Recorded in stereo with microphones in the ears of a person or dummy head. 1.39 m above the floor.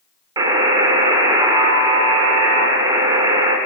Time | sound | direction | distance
0.4 | a buzzer | 25° right (ahead or behind) | 1.8 m